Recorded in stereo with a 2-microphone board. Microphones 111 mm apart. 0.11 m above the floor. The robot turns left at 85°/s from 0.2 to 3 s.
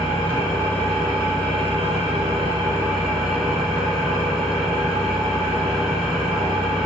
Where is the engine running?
60° left, 3.5 m; by 6.9 s 175° right, 3.5 m.